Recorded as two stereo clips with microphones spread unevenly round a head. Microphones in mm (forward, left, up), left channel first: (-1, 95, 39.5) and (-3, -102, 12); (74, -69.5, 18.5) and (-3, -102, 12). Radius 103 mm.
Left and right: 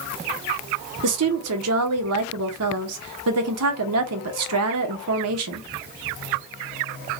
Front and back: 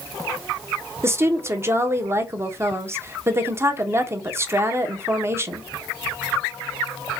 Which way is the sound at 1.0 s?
95° right.